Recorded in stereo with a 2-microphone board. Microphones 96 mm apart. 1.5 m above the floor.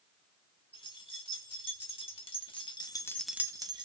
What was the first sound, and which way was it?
Keys jangling, 70° left (ahead or behind).